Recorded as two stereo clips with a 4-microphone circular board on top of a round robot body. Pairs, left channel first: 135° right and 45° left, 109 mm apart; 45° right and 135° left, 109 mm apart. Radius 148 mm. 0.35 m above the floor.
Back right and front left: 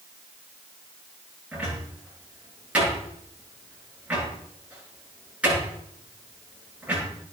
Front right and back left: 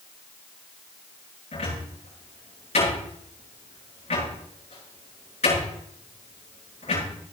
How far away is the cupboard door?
About 8.5 m.